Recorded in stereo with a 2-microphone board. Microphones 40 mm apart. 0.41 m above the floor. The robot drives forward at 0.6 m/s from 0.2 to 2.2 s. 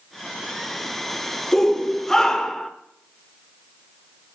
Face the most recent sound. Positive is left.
turn(degrees=10)  # may be behind; listen again after turning